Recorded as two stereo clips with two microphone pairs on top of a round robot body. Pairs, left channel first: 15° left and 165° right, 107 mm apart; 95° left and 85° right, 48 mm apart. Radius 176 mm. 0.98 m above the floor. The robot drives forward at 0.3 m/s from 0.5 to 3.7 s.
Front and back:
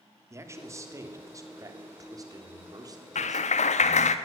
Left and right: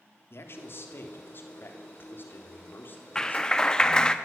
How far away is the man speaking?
About 3 m.